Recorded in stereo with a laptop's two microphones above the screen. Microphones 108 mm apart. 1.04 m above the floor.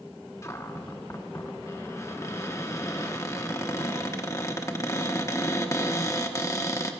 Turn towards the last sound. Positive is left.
turn(degrees=30)  # may be behind; listen again after turning